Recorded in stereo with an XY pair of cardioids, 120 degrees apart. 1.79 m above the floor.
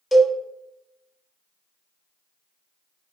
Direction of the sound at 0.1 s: 10° left.